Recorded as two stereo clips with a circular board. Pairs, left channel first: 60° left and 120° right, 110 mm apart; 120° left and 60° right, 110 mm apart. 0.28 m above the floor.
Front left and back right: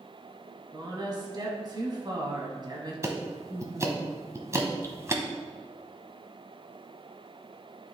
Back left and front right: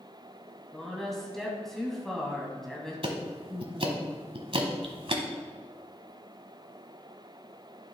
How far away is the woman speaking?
About 1.7 m.